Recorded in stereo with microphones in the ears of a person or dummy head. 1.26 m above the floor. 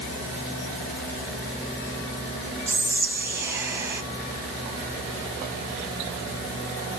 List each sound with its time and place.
2.7 s whispering: 15° right (ahead or behind), 0.6 m